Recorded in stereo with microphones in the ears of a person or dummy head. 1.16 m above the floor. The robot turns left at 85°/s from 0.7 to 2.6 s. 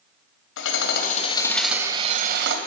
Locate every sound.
0.6 s hammering: 80° left, 2.5 m; by 2.6 s 80° right, 2.5 m